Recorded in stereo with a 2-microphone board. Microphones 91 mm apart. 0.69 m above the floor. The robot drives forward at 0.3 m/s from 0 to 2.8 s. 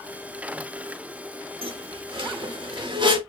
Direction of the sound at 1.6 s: 80° right.